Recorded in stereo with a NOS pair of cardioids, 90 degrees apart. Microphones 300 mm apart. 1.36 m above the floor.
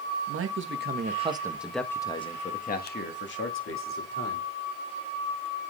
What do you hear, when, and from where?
0.3 s a man speaking: 50° right, 1.7 m; by 4.5 s 50° left, 3.5 m